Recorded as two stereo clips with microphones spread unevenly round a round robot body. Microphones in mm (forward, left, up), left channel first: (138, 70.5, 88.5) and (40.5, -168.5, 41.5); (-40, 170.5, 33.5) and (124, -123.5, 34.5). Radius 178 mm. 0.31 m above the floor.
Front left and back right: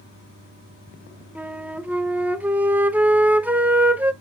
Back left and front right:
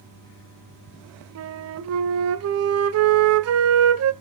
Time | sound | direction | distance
1.4 | a flute | 40° right | 1.1 m